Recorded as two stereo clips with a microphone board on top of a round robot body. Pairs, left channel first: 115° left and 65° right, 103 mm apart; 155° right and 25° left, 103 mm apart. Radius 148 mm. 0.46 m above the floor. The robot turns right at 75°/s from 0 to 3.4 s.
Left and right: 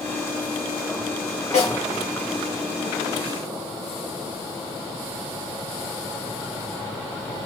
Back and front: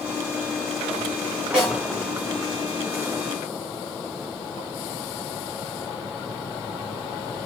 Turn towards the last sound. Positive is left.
turn(degrees=-120)